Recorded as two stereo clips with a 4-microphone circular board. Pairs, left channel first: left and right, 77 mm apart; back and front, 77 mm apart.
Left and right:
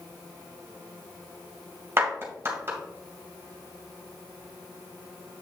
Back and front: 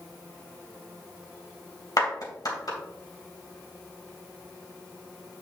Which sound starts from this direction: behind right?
A clap, at 2.0 s.